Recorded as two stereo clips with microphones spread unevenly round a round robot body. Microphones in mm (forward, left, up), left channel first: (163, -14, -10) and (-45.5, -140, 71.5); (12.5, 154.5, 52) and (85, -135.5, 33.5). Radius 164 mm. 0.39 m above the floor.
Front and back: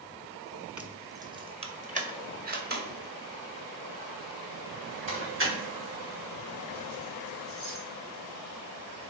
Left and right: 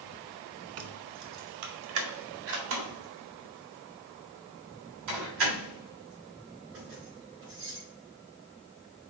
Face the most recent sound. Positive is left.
turn(degrees=-115)